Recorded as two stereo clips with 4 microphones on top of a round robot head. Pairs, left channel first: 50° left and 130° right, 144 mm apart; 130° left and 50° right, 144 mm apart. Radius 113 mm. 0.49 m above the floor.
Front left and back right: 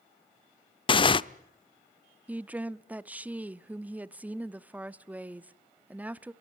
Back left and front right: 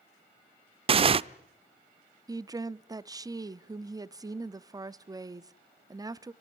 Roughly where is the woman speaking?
Ahead right.